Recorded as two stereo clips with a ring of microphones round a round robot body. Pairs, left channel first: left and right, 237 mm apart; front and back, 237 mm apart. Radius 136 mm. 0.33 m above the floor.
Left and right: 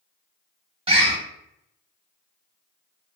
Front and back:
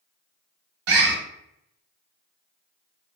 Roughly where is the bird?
Behind.